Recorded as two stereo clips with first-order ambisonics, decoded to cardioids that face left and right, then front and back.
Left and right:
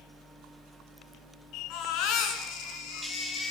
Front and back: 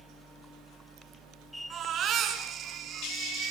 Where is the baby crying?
120° left, 5.5 m.